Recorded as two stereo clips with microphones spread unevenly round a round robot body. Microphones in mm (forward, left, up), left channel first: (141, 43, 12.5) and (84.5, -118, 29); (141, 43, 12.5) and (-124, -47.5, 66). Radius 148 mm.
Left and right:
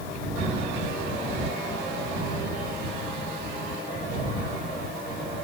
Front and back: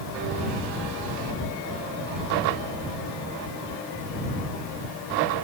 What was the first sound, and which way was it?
Only background noise.